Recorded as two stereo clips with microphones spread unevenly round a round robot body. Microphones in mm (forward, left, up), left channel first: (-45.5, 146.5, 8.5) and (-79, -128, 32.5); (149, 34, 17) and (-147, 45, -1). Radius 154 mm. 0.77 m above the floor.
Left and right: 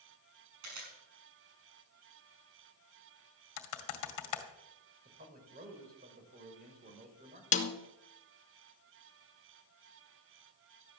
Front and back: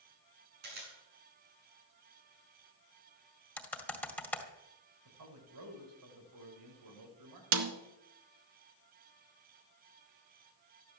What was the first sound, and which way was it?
A camera shutter, 120° right.